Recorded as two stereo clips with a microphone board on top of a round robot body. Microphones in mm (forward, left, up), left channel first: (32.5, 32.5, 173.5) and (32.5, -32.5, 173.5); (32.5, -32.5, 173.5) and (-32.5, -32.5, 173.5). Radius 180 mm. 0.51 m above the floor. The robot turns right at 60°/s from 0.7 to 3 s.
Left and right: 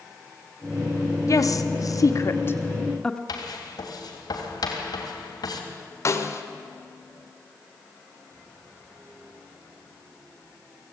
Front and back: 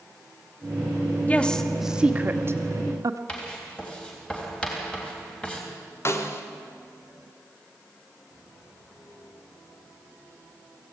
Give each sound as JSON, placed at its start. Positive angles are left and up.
{"t": 1.3, "sound": "a woman speaking", "azimuth_deg": 65, "distance_m": 1.8}
{"t": 3.3, "sound": "writing", "azimuth_deg": 75, "distance_m": 3.5}
{"t": 6.0, "sound": "a snare drum", "azimuth_deg": 45, "distance_m": 1.8}